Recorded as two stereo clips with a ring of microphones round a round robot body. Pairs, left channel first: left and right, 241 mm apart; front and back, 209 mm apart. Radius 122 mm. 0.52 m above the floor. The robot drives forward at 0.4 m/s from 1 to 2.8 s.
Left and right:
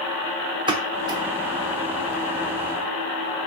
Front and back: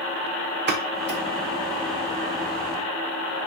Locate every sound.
0.7 s a pop: 160° right, 1.0 m